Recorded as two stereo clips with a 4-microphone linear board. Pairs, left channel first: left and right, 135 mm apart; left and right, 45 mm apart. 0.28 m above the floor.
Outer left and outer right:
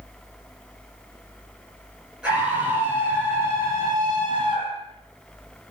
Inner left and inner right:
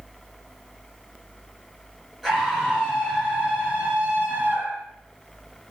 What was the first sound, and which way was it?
A scream, 5° right (ahead or behind).